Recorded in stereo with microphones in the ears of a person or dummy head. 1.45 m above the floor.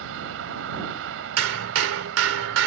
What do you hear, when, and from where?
0.0 s a vehicle: 80° right
1.4 s hammering: 85° right